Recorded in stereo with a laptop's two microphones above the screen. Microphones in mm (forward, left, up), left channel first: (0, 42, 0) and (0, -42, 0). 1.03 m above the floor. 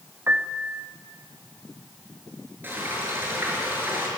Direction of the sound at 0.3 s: 25° right (ahead or behind).